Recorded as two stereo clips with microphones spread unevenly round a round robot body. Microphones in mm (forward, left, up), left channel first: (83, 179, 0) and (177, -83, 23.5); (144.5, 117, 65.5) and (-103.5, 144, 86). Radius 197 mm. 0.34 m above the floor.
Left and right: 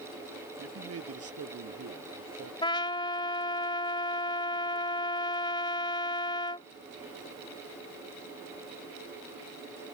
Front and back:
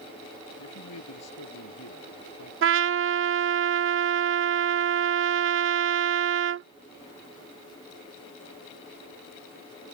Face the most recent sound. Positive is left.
turn(degrees=175)